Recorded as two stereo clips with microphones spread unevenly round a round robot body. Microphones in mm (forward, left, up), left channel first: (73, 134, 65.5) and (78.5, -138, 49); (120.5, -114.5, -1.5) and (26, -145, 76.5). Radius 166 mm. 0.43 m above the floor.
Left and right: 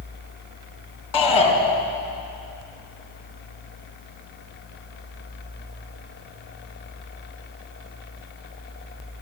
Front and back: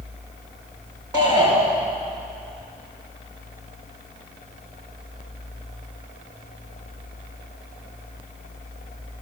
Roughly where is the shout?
Left.